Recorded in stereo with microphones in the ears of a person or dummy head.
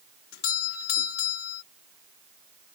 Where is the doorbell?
80° left.